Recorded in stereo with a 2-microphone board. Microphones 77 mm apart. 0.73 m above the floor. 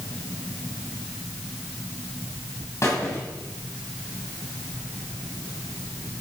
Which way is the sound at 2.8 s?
35° left (ahead or behind).